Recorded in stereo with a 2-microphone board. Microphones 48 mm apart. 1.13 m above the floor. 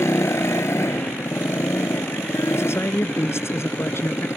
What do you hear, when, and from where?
0.0 s a motorcycle: 70° left (ahead or behind)
2.5 s a man speaking: 60° left (ahead or behind)